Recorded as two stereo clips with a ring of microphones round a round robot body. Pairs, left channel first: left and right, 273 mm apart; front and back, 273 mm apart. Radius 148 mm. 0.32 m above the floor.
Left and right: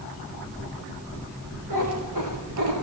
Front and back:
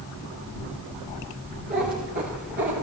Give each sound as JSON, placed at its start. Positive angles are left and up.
{"t": 1.7, "sound": "a cat meowing", "azimuth_deg": -120, "distance_m": 9.5}